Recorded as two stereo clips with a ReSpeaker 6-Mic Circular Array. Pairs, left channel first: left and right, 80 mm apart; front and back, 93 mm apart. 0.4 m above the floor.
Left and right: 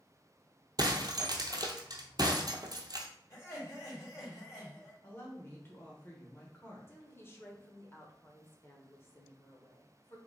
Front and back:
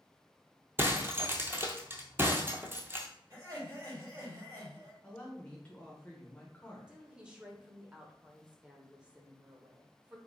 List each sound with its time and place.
0.8 s breaking glass: 115° right, 0.7 m
3.3 s laughter: 130° left, 2.5 m
5.0 s a woman speaking: 60° left, 0.9 m
6.9 s a woman speaking: 110° left, 0.9 m